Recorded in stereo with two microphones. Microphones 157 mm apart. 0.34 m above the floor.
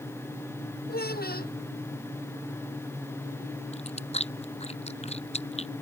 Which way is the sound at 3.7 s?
40° left (ahead or behind).